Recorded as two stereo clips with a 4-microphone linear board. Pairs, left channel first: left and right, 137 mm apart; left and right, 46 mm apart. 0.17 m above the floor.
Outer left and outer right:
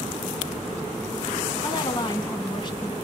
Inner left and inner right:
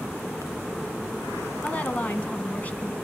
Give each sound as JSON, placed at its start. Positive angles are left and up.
{"t": 1.6, "sound": "a woman speaking", "side_deg": 35, "distance_m": 1.2}